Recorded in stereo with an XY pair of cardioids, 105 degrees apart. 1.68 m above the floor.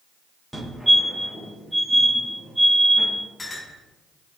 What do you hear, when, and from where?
0.5 s a fire alarm: 15° right, 6.5 m
3.4 s a clink: 20° left, 5.5 m